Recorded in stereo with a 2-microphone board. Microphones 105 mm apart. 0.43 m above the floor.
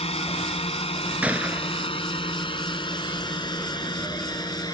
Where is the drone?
70° left (ahead or behind); by 4.7 s 40° left (ahead or behind).